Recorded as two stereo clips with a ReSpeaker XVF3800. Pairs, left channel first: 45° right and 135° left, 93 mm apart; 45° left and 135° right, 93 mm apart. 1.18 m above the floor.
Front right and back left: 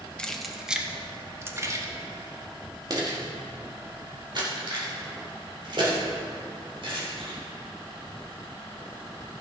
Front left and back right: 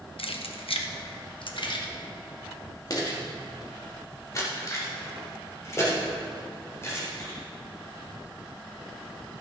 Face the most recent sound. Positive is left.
turn(degrees=105)